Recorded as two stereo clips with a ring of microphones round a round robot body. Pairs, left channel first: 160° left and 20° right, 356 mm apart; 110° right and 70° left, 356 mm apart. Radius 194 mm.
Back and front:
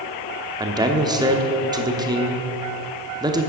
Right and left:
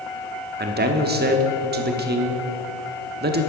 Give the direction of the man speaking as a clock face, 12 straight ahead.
11 o'clock.